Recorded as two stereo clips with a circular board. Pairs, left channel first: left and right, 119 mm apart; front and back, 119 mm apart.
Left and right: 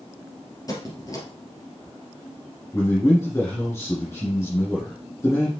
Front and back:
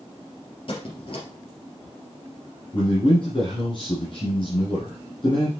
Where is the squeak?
35° left, 2.5 m.